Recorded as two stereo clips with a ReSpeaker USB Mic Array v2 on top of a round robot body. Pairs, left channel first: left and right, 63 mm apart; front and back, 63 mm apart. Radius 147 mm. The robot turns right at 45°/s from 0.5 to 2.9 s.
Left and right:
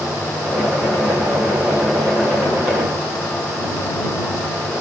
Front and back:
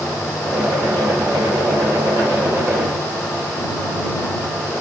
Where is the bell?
I don't hear a bell.